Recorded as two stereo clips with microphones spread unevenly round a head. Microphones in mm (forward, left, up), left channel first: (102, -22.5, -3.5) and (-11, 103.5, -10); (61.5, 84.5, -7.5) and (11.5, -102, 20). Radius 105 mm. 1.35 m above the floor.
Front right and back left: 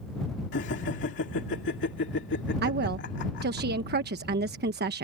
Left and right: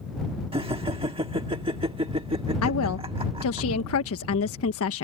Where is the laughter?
45° right.